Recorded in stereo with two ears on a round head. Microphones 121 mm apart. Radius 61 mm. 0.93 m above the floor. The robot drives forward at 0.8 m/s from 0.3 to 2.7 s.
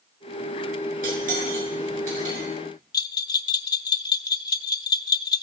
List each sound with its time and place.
1.0 s cutlery clinking: 70° right (ahead or behind), 7 m; by 2.5 s 65° right (ahead or behind), 7.5 m
2.9 s a bell: 30° left (ahead or behind), 0.6 m